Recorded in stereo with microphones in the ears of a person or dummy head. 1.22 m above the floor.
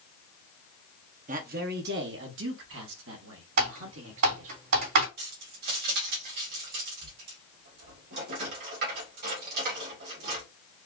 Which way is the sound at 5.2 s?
50° right (ahead or behind).